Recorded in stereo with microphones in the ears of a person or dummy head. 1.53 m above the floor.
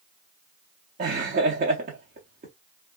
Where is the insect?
I don't hear an insect.